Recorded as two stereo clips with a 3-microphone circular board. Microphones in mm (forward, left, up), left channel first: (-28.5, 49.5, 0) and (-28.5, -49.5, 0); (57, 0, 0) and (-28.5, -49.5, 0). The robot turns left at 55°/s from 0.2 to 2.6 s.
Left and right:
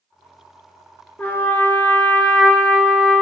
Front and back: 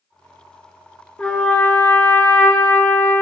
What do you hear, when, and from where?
1.2 s a trumpet: 80° left, 1.0 m; by 3.2 s 5° left, 1.0 m